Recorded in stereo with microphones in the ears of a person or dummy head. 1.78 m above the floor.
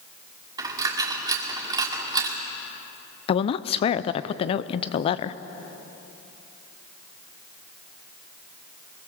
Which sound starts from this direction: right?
A dropped coin, at 0.6 s.